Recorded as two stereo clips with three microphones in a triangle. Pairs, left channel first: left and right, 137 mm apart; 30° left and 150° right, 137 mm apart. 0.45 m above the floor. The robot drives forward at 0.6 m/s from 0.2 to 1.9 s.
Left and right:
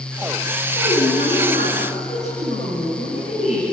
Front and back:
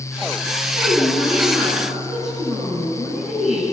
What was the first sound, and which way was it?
A woman speaking, 120° left.